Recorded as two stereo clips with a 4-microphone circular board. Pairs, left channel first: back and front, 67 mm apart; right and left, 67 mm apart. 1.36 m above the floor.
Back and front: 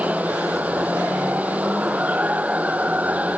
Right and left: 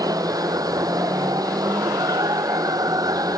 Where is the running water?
65° left.